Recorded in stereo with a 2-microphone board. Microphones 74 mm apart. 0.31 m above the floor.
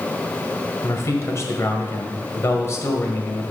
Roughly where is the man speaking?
Left.